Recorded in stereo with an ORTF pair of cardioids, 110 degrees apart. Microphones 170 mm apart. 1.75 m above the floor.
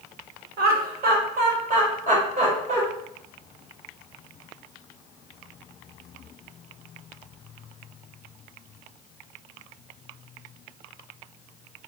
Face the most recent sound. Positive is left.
turn(degrees=-40)